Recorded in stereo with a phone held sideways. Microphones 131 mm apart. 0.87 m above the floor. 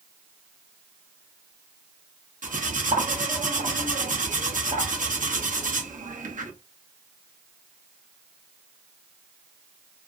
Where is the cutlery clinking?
85° right, 0.6 m.